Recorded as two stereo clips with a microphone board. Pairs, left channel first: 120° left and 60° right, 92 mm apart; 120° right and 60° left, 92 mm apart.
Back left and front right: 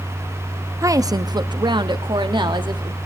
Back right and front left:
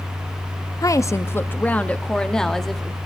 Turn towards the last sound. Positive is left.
turn(degrees=-30)